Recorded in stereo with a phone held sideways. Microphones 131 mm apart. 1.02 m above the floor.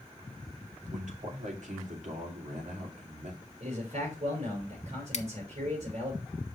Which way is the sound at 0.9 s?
65° right (ahead or behind).